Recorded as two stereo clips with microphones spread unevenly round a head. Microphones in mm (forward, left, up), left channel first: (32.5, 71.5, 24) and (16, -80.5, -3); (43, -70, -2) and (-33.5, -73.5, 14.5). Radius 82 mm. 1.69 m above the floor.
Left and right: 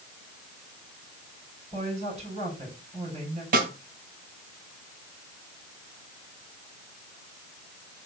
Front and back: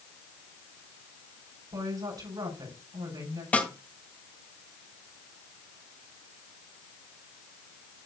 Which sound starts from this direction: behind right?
A woman speaking, at 1.7 s.